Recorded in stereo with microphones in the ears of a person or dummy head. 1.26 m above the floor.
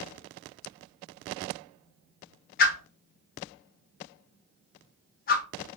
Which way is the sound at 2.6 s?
45° left (ahead or behind).